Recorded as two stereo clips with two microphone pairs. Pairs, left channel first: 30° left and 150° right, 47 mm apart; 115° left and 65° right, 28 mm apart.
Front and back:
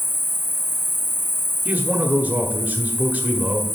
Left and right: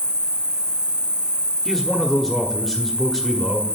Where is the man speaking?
155° right, 1.0 m.